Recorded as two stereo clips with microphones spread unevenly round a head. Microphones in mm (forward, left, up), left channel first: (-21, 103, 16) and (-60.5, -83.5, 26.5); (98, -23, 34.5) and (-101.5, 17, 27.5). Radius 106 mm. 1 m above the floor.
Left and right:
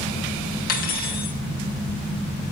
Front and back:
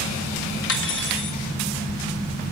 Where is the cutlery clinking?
25° left, 0.9 m.